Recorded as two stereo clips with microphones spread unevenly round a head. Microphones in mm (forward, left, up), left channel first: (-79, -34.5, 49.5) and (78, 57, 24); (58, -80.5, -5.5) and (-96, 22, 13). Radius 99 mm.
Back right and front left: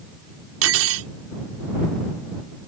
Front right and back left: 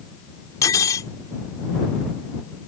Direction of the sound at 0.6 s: 45° left.